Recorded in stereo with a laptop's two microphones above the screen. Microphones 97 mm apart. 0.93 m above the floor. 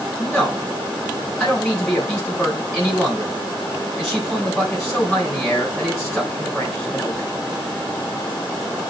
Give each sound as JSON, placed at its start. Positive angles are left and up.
{"t": 0.2, "sound": "a man speaking", "side_deg": 0, "distance_m": 4.0}